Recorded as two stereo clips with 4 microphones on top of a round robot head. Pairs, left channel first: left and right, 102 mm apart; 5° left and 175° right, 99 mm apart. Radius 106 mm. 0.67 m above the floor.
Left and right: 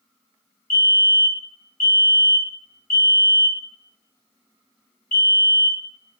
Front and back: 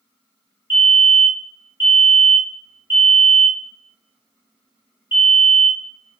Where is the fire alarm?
140° left, 1.7 m.